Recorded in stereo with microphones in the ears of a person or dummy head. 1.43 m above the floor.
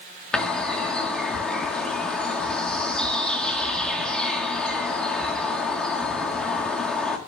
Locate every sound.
0.3 s a bird: centre (ahead or behind), 1.6 m